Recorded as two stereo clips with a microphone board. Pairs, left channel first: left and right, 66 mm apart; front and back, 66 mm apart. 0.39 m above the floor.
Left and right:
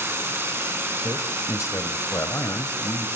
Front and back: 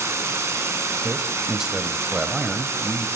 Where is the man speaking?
100° left, 1.4 m.